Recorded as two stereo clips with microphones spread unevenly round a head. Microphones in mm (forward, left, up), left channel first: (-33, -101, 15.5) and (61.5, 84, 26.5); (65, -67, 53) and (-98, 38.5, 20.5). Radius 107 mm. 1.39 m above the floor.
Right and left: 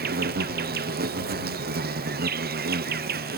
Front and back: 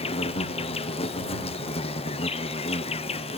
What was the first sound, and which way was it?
An insect, 30° left.